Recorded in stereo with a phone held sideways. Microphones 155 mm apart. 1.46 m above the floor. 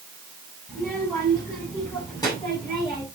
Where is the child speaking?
15° left (ahead or behind), 7.5 m; by 3.0 s 30° left (ahead or behind), 8 m.